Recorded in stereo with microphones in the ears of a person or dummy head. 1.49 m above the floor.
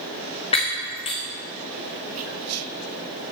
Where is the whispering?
65° right (ahead or behind), 0.6 m.